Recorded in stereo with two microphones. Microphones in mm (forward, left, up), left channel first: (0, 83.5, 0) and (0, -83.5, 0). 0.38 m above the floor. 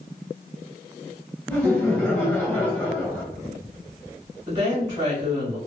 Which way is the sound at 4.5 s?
25° right (ahead or behind).